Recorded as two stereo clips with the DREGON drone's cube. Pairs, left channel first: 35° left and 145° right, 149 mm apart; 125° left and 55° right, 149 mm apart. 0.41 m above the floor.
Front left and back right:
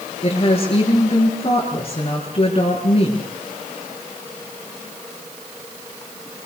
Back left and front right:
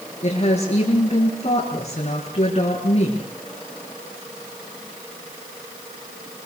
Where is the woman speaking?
85° left, 6.5 m.